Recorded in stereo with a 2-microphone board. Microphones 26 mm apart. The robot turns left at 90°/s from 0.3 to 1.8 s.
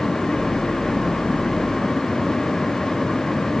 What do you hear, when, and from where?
Only background noise.